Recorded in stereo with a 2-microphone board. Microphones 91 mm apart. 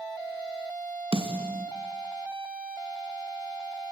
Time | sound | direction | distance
1.1 | a snare drum | 75° right (ahead or behind) | 2.5 m